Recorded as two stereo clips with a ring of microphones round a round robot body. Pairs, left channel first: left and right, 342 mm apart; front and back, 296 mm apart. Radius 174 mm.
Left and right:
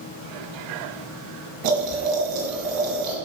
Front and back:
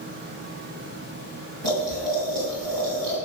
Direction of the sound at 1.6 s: 130° right.